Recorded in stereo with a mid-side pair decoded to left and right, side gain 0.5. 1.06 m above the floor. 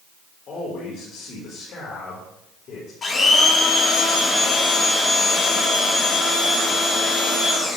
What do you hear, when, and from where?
0.5 s a man speaking: 55° left, 3.5 m
3.0 s a blender: 40° left, 3 m